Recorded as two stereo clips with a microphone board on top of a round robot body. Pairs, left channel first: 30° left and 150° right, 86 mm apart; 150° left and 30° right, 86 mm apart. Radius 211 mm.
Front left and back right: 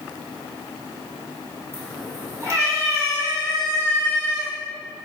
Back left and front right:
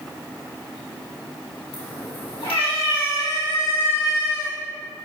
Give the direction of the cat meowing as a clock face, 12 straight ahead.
7 o'clock.